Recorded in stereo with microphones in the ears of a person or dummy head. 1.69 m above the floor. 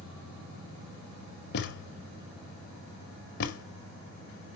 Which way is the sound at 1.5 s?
60° left (ahead or behind).